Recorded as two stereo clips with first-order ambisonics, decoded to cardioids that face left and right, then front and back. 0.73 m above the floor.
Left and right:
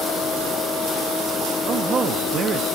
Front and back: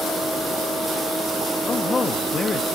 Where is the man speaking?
50° right, 0.8 m.